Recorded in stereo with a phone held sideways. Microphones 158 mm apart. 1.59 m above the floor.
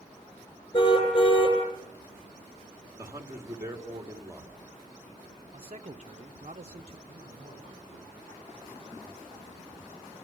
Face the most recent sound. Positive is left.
turn(degrees=-35)  # may be behind; listen again after turning